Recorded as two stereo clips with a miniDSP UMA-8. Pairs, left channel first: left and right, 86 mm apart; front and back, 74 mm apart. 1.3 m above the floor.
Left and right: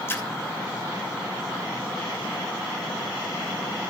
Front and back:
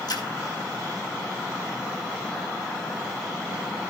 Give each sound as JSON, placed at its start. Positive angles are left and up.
{"t": 0.1, "sound": "a splash", "azimuth_deg": 30, "distance_m": 2.5}